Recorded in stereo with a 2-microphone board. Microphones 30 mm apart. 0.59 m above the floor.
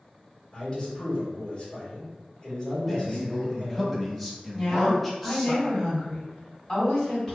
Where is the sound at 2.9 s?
5° left (ahead or behind), 0.7 m.